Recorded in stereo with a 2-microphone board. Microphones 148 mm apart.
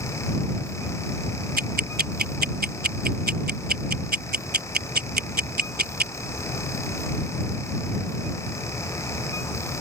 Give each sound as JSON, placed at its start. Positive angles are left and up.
{"t": 1.6, "sound": "ticking", "side_deg": -80}